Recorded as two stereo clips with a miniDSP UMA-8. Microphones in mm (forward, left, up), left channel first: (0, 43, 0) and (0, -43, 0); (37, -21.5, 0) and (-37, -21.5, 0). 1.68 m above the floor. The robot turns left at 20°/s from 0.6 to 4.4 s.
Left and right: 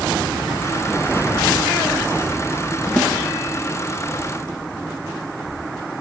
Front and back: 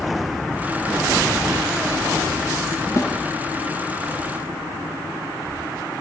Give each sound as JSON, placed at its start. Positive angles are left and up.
{"t": 3.0, "sound": "a snare drum", "azimuth_deg": 15, "distance_m": 1.1}